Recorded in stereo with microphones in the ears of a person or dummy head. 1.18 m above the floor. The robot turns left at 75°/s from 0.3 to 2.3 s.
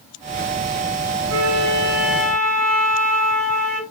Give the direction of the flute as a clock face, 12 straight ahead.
4 o'clock.